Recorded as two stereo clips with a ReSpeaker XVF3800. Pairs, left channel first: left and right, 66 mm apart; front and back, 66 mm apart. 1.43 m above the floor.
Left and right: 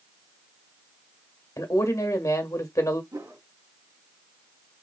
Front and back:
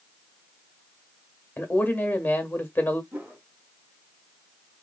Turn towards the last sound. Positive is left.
turn(degrees=-120)